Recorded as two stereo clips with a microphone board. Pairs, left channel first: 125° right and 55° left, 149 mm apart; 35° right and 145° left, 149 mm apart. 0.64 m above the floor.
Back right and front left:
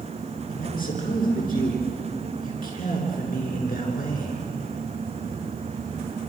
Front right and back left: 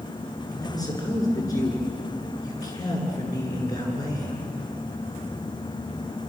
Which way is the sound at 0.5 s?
100° right.